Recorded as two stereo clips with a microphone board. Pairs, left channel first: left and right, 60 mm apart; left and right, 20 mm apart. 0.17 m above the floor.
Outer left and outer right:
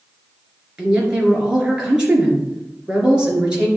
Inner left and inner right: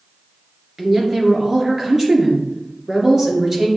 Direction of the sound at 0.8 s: 15° right (ahead or behind).